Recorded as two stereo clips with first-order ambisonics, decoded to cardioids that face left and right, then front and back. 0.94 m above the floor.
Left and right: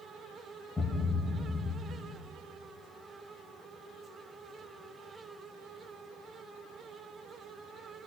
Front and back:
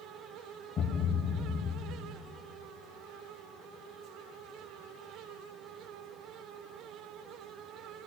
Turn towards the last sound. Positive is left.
turn(degrees=25)